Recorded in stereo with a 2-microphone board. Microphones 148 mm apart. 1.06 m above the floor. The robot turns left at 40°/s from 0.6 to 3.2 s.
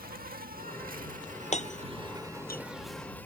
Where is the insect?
90° right; by 3.3 s 165° left.